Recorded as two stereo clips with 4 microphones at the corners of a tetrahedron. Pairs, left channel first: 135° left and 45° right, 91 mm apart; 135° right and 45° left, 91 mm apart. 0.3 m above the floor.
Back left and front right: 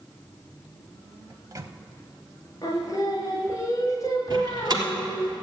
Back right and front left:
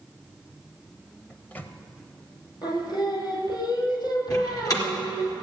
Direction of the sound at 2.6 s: 170° right.